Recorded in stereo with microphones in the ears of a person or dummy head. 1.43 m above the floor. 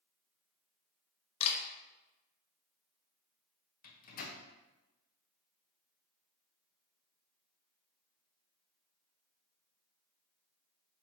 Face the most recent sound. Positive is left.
turn(degrees=50)  # may be behind; listen again after turning